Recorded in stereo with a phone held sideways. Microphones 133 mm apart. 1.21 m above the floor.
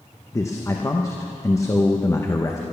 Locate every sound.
0.3 s a man speaking: 20° left (ahead or behind), 0.8 m